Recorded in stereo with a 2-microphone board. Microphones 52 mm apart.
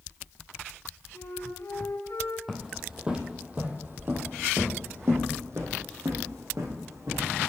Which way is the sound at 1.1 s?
75° left (ahead or behind).